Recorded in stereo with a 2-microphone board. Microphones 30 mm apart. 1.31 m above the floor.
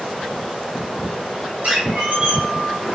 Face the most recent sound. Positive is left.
turn(degrees=-45)  # may be behind; listen again after turning